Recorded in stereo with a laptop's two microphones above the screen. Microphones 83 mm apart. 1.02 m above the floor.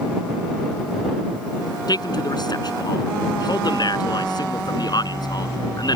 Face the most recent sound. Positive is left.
turn(degrees=55)  # may be behind; listen again after turning